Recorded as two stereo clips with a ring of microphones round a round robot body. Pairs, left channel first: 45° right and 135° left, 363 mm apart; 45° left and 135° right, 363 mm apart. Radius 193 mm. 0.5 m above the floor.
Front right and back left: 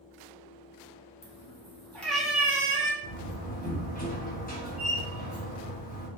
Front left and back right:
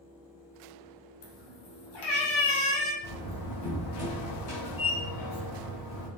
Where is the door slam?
20° left, 3 m.